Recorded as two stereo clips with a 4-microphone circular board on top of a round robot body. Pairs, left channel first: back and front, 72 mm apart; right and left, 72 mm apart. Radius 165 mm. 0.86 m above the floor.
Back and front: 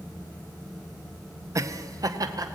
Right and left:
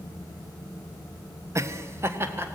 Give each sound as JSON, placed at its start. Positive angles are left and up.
{"t": 1.6, "sound": "laughter", "azimuth_deg": 45, "distance_m": 1.1}